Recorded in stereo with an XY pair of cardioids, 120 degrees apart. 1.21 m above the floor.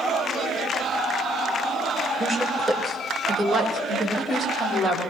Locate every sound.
2.2 s a woman speaking: straight ahead, 3.5 m; by 5.0 s 15° right, 5.5 m